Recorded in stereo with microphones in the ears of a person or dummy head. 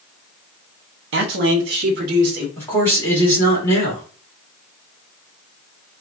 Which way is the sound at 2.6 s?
15° left (ahead or behind).